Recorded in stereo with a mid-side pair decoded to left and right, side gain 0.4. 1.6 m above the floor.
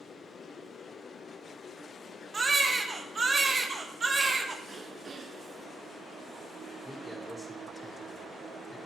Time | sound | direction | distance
2.3 | a baby crying | 35° right | 1.5 m
4.7 | throat clearing | 45° right | 1.3 m
6.8 | a man speaking | 5° left | 4.5 m